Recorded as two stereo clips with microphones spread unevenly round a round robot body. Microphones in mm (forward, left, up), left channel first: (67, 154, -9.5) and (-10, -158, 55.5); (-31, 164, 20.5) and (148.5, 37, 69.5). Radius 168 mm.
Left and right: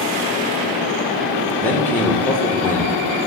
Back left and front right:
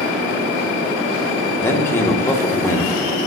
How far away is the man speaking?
About 1.5 m.